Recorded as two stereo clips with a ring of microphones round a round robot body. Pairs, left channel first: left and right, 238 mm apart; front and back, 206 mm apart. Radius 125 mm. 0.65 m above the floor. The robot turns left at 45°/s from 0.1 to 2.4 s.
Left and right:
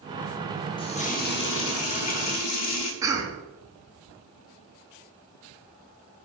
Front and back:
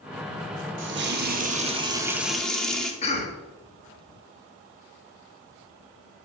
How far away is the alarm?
No alarm in this recording.